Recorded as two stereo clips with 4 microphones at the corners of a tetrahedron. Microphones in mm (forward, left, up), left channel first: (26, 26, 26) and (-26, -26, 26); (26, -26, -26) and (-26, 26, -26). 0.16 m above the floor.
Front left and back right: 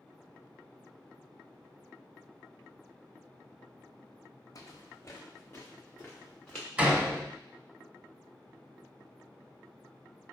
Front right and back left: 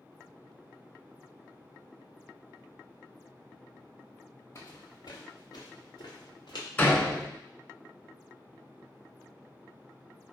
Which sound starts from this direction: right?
A door slam, at 6.8 s.